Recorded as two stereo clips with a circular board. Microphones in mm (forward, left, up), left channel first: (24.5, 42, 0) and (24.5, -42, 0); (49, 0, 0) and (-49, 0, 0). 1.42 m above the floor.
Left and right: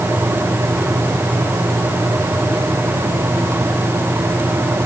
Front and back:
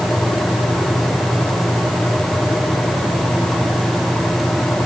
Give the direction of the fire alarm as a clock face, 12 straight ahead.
No fire alarm in this recording.